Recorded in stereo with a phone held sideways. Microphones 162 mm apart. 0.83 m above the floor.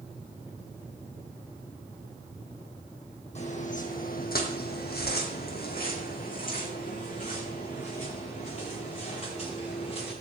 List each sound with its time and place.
3.4 s footsteps: 45° left (ahead or behind), 2.5 m; by 10.1 s 40° left (ahead or behind), 8 m